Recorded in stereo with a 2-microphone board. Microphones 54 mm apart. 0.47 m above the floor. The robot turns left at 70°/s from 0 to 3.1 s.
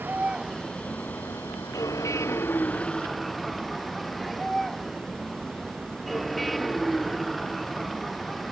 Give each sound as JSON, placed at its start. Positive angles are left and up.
{"t": 0.0, "sound": "a vehicle", "azimuth_deg": -140}